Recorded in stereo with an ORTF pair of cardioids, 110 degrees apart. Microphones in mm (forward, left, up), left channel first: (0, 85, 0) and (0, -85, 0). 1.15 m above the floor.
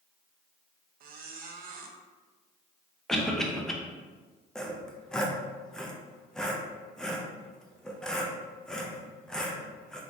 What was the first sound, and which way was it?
A squeak, 60° right.